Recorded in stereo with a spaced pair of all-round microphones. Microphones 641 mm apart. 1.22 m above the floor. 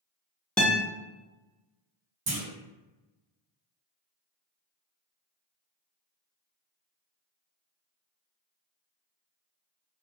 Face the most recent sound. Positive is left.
turn(degrees=-45)  # may be behind; listen again after turning